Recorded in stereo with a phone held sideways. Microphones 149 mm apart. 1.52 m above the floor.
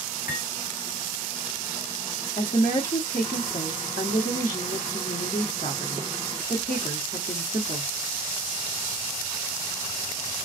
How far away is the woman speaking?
About 1.0 m.